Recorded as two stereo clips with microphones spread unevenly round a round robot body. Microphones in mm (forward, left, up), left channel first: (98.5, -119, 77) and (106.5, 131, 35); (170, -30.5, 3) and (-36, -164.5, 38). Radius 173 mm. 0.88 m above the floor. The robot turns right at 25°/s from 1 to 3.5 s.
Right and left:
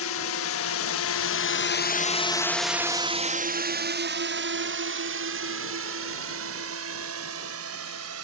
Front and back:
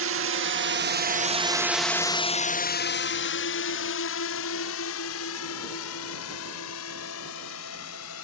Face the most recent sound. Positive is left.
turn(degrees=70)